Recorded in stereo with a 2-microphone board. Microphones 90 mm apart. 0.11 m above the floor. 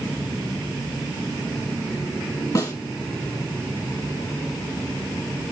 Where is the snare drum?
40° left (ahead or behind), 1.2 m.